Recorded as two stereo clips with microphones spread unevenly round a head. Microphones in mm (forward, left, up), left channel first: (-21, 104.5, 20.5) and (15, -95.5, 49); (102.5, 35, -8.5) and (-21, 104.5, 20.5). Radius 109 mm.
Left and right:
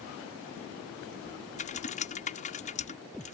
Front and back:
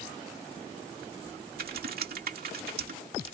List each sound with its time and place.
1.6 s typing on a keyboard: 160° left